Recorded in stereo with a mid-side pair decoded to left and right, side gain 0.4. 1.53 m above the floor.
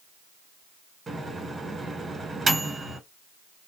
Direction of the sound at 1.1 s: 40° right.